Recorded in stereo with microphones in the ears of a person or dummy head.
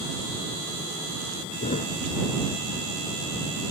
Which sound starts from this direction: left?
A thud, at 1.6 s.